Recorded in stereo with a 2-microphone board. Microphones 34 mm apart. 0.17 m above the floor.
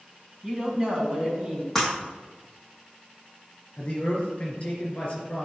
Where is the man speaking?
40° left (ahead or behind), 3.5 m.